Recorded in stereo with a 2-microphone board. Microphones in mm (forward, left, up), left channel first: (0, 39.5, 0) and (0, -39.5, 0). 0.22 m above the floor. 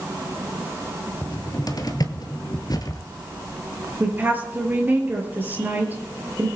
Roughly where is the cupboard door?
Left.